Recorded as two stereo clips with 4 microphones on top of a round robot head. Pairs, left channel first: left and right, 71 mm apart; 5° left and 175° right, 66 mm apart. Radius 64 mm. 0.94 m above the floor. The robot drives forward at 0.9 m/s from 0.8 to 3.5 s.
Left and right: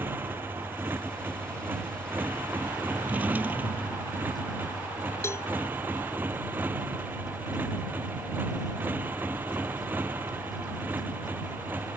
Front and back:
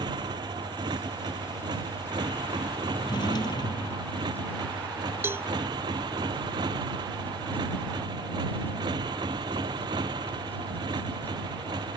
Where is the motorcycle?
155° right; by 12.0 s 160° right.